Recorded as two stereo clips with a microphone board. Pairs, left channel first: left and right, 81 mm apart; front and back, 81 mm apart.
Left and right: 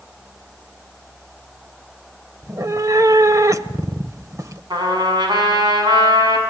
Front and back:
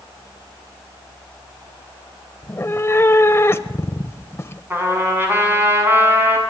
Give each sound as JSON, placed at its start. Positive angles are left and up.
{"t": 2.4, "sound": "a cat meowing", "azimuth_deg": -50, "distance_m": 1.1}
{"t": 4.7, "sound": "a trumpet", "azimuth_deg": -115, "distance_m": 7.0}